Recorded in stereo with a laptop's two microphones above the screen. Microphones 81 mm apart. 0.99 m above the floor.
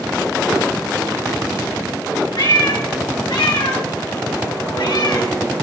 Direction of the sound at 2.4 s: 70° left (ahead or behind).